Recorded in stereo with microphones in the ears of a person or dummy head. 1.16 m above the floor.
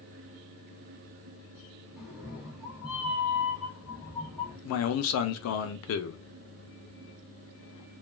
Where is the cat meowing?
Centre (ahead or behind), 0.5 m.